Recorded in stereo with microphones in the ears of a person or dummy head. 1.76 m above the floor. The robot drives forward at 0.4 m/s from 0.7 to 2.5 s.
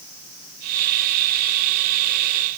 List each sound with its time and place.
Only background noise.